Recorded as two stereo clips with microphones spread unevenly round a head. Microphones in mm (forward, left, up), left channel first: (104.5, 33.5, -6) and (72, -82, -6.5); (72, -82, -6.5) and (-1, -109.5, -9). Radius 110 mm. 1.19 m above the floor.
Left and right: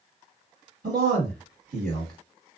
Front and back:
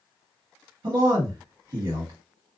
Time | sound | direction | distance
0.8 | a man speaking | 155° right | 1.5 m